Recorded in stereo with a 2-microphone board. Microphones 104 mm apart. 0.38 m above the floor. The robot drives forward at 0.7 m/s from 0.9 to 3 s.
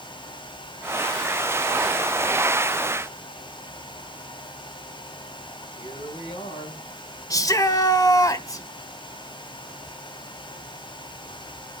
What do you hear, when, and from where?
5.8 s a woman speaking: 75° left (ahead or behind), 7 m
7.3 s a shout: 35° left (ahead or behind), 1.2 m